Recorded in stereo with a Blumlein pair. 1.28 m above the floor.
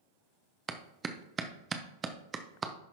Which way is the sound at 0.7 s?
20° right.